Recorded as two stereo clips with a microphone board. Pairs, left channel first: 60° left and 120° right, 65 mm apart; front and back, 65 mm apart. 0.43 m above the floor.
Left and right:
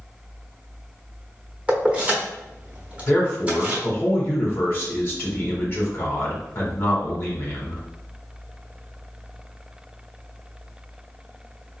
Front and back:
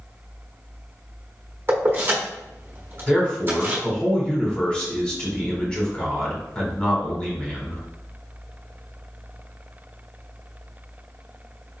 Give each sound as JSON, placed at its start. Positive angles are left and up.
{"t": 1.7, "sound": "keys jangling", "azimuth_deg": 180, "distance_m": 1.0}
{"t": 3.1, "sound": "a man speaking", "azimuth_deg": 65, "distance_m": 1.1}